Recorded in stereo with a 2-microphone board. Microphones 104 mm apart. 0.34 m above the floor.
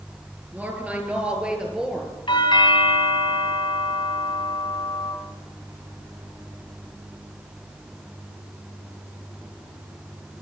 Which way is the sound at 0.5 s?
15° right (ahead or behind).